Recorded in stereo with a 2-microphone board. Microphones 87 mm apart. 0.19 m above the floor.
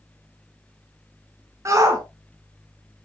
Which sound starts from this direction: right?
A shout, at 1.6 s.